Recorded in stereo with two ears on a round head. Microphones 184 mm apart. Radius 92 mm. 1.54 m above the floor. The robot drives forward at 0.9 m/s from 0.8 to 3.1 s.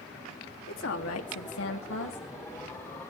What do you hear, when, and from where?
0.7 s a woman speaking: 65° left (ahead or behind), 1.5 m; by 2.3 s 60° left (ahead or behind), 1.5 m